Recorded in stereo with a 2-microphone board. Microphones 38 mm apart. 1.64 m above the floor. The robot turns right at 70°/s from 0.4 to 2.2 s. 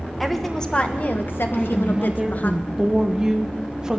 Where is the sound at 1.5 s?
150° left, 1.3 m; by 4.0 s 160° right, 1.3 m.